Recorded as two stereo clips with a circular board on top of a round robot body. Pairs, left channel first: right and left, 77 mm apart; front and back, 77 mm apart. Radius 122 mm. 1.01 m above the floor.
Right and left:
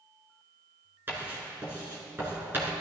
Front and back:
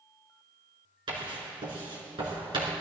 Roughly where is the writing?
Behind left.